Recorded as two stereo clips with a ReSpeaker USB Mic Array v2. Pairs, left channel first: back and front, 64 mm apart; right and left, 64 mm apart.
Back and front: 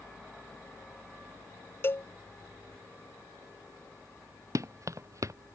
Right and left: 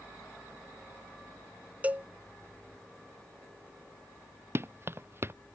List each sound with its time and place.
1.8 s a cowbell: 145° left
4.5 s running footsteps: 40° left